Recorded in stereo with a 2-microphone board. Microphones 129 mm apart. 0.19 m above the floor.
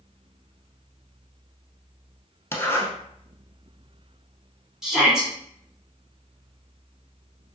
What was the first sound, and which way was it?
A zipper, 20° left (ahead or behind).